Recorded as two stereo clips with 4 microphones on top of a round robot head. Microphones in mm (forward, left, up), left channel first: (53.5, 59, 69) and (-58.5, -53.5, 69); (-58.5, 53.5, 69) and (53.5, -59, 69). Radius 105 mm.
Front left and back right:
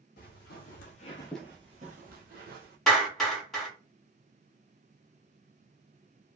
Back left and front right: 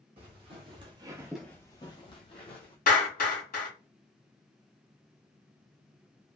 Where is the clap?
130° left, 1.9 m.